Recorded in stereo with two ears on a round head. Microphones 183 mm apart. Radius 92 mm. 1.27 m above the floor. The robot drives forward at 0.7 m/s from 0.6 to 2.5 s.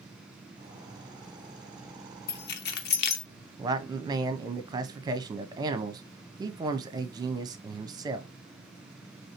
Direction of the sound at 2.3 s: 50° left (ahead or behind).